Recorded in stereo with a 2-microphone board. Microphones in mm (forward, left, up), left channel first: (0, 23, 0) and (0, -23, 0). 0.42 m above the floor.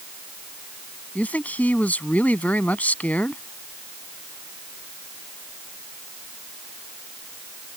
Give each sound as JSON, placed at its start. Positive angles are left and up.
{"t": 1.1, "sound": "a man speaking", "side_deg": 35}